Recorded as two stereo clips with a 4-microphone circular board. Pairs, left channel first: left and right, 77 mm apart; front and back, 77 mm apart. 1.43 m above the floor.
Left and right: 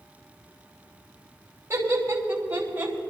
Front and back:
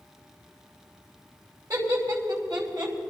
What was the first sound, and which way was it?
Laughter, 145° right.